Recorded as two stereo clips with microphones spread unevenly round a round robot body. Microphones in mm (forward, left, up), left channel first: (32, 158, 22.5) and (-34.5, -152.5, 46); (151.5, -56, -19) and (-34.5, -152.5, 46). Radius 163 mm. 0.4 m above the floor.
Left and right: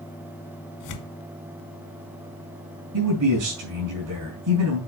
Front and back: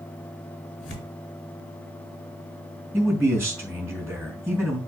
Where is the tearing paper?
70° left, 2 m.